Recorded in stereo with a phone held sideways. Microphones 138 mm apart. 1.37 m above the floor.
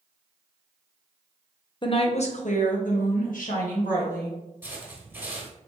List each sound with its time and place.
1.8 s a woman speaking: 35° left (ahead or behind), 0.6 m; by 4.4 s 85° left, 1.8 m
4.6 s footsteps: 15° right (ahead or behind), 1.6 m